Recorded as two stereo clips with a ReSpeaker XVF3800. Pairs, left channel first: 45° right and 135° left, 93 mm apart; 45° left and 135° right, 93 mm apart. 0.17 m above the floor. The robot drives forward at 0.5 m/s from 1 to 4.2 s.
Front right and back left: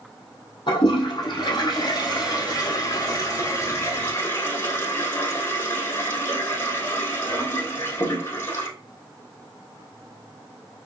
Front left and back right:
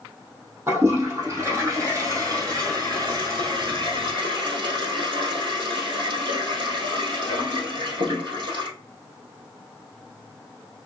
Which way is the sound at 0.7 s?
70° right.